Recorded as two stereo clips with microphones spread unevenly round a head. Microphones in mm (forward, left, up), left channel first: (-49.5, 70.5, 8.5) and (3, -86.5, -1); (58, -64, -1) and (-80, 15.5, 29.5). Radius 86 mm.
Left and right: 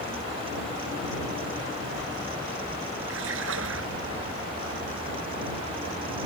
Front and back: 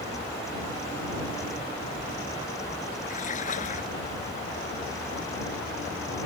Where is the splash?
70° right.